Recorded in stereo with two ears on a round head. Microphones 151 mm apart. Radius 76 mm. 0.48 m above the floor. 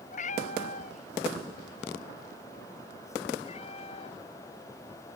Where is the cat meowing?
45° left (ahead or behind); by 4.2 s 35° left (ahead or behind).